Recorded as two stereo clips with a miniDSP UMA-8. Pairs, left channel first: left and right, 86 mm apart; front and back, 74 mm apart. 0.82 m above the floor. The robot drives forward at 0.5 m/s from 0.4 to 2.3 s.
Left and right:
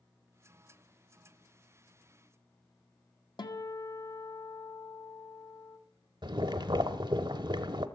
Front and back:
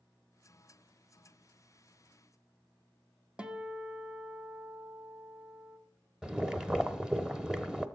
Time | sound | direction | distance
3.4 | a guitar | 105° left | 1.2 m
6.2 | boiling | 100° right | 0.8 m